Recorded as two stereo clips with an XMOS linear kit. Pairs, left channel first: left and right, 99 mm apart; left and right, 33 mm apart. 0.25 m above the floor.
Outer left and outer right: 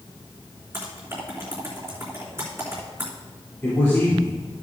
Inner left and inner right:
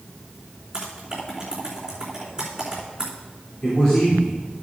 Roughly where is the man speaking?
Left.